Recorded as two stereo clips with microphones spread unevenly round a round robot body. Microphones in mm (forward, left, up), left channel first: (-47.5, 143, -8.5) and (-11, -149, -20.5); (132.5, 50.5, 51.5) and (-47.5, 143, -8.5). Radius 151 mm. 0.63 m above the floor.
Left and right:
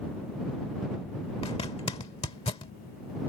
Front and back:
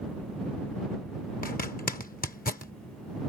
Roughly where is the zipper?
Ahead left.